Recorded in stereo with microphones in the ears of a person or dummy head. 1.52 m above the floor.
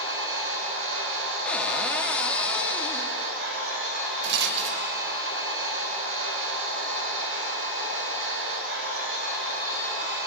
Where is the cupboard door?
5° left (ahead or behind), 0.9 m.